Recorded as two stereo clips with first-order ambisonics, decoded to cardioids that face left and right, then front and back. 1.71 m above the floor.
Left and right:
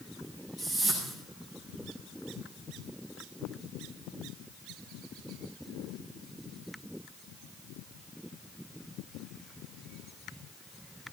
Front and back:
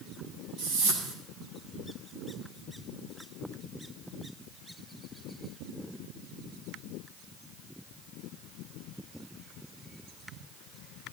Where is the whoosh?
170° left, 8.5 m.